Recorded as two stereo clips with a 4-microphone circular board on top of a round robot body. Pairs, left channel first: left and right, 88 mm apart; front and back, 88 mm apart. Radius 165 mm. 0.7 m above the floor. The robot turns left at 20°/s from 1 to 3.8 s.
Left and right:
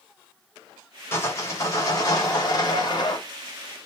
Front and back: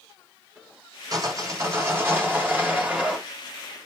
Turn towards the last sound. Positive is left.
turn(degrees=90)